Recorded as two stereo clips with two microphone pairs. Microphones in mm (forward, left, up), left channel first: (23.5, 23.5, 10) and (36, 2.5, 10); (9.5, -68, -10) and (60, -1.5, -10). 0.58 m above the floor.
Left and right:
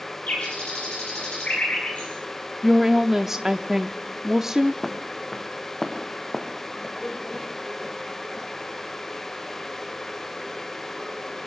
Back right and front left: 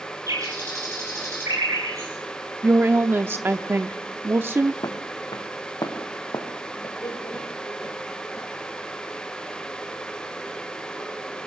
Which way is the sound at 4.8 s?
160° right.